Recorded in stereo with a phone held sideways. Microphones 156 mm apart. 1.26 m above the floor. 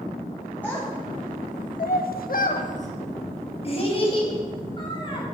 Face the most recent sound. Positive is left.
turn(degrees=30)  # may be behind; listen again after turning